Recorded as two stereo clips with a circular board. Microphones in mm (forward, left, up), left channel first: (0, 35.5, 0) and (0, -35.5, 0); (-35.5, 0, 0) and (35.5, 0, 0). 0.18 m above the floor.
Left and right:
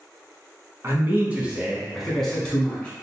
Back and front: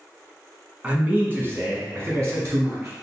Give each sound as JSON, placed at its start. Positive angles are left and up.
{"t": 0.8, "sound": "a man speaking", "azimuth_deg": -60, "distance_m": 1.3}